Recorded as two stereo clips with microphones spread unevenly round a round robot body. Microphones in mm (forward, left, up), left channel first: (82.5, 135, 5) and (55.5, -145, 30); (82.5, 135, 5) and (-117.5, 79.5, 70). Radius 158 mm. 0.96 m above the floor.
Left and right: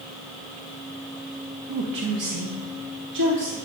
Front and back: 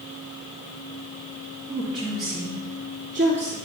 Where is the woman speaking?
75° right, 1.2 m; by 3.5 s 110° right, 2.5 m.